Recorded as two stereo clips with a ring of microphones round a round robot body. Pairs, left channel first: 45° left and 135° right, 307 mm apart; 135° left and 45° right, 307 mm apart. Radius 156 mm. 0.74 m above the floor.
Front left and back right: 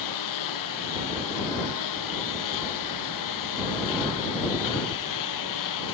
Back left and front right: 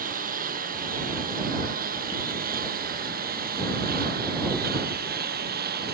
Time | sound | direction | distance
0.0 | a lawn mower | 20° left | ?